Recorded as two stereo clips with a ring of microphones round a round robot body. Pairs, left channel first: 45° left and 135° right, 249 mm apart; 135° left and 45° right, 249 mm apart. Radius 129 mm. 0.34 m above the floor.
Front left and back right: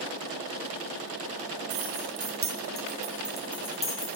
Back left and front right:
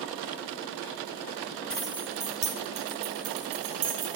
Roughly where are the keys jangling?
Behind right.